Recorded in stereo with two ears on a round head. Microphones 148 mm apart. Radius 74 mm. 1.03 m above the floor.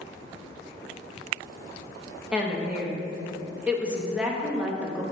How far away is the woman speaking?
About 0.9 m.